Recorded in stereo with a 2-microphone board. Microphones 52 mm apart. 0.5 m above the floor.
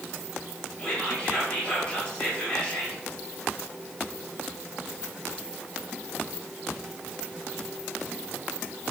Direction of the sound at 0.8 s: 25° left (ahead or behind).